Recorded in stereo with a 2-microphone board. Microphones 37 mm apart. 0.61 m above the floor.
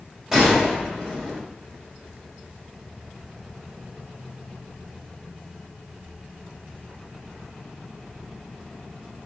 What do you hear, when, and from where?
0.3 s a gunshot: 10° right (ahead or behind), 2.5 m